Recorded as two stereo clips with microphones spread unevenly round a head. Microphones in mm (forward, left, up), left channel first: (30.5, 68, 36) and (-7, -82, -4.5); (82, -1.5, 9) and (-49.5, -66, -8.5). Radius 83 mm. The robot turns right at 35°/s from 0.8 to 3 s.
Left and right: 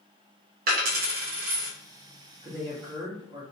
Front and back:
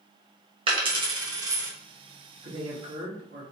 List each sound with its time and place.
0.7 s a dropped coin: 115° right, 1.0 m; by 1.7 s 85° right, 1.0 m
2.4 s a man speaking: 165° left, 1.5 m; by 3.4 s 175° right, 1.5 m